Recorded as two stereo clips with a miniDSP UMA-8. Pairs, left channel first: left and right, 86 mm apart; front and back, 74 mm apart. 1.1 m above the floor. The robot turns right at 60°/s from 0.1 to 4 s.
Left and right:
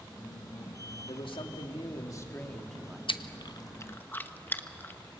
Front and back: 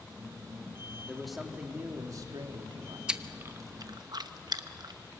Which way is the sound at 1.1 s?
80° left.